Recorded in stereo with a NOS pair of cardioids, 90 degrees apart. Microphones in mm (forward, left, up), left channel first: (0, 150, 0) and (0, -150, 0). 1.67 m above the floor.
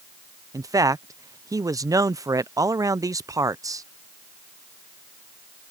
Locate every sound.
0.5 s a man speaking: 10° right